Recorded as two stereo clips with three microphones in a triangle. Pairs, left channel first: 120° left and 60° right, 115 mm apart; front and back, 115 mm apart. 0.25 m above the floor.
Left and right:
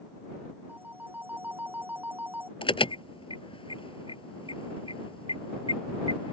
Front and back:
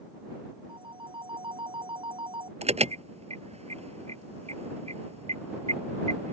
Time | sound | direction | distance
0.7 | a phone ringing | 135° right | ?
2.6 | an alarm | 160° left | ?